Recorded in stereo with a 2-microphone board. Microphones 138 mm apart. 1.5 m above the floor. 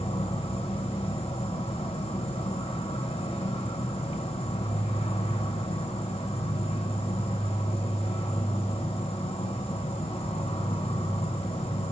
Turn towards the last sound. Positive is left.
turn(degrees=50)  # may be behind; listen again after turning